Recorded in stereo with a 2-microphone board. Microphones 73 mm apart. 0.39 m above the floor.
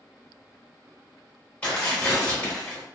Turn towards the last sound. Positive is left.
turn(degrees=20)  # may be behind; listen again after turning